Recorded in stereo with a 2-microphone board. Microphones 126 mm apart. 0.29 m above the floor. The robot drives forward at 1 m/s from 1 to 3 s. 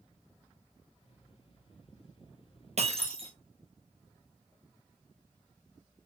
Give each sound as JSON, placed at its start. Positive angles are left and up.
{"t": 2.8, "sound": "breaking glass", "side_deg": -60, "distance_m": 1.3}